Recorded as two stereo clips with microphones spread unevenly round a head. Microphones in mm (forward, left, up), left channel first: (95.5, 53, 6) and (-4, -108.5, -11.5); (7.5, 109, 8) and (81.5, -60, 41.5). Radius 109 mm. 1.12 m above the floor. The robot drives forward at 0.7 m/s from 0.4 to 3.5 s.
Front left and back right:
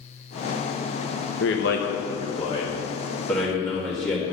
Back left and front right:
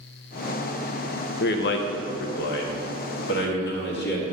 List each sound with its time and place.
1.4 s a man speaking: 95° left, 1.1 m; by 4.3 s 145° left, 1.9 m